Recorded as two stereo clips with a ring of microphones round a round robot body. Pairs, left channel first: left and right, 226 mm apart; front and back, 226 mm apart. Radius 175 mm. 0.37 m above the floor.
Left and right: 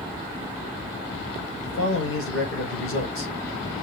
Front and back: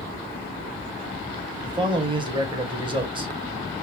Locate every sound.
1.6 s a man speaking: 110° left, 1.8 m